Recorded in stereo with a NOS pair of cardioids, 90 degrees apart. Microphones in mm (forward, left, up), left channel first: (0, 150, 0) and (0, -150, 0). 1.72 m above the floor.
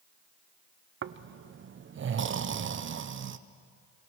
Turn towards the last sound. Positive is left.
turn(degrees=-40)